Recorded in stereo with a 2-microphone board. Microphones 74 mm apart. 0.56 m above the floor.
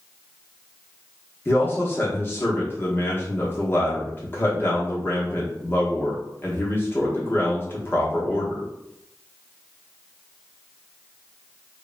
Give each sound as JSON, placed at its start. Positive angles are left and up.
{"t": 1.4, "sound": "a man speaking", "side_deg": 30, "distance_m": 0.9}